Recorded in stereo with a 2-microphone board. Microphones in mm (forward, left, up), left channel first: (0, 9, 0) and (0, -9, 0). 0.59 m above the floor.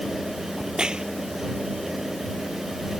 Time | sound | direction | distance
0.6 | a crack | 55° right (ahead or behind) | ?